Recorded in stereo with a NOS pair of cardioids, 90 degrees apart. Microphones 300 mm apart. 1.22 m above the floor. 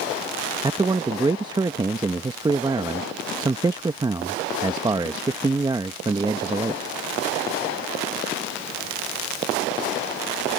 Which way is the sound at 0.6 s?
15° right.